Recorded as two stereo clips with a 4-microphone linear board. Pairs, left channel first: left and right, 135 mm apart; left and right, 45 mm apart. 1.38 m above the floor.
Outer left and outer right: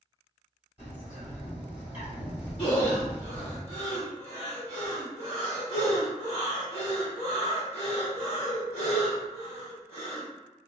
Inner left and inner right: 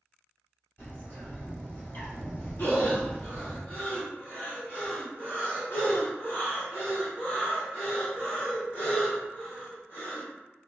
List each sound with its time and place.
0.8 s a bird: 40° left (ahead or behind), 1.6 m
2.6 s breathing: 40° left (ahead or behind), 1.3 m